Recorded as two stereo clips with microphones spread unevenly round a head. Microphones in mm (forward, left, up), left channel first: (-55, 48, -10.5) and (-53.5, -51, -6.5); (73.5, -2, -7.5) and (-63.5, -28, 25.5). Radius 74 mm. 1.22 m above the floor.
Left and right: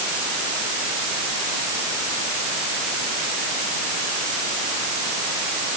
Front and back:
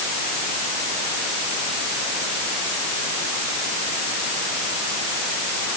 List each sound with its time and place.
Only background noise.